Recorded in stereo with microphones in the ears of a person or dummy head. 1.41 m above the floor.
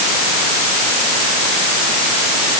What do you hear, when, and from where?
Only background noise.